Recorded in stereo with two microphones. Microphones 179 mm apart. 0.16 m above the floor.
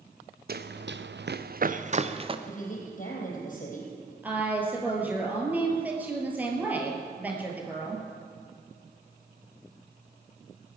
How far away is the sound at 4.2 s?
About 3 m.